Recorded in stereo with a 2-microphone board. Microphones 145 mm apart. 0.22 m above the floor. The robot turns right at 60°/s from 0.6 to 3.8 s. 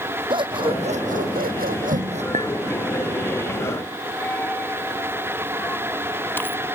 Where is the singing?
No singing in this recording.